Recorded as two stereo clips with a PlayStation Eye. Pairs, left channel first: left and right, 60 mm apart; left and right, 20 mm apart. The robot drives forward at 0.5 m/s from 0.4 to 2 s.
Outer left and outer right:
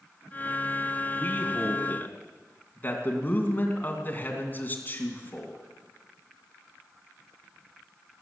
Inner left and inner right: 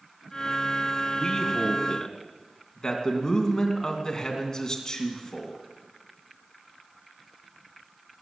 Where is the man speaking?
35° left (ahead or behind), 2.5 m; by 5.5 s 30° left (ahead or behind), 2.5 m.